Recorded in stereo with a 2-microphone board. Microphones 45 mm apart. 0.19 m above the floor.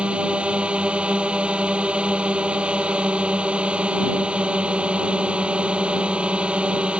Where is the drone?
25° right (ahead or behind).